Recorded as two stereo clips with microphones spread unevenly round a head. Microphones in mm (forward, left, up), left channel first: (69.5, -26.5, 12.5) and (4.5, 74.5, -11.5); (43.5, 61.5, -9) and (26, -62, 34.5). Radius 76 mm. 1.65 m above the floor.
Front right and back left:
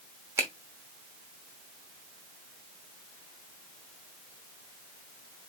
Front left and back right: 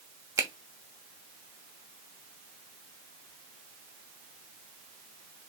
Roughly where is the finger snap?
Behind.